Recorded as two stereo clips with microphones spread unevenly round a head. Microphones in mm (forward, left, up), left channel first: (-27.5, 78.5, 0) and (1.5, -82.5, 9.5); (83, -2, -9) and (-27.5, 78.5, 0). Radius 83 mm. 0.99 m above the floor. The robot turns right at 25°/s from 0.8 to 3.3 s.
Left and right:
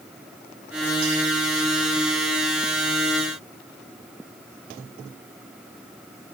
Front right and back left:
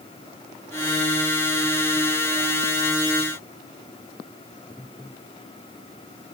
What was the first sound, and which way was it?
Only background noise.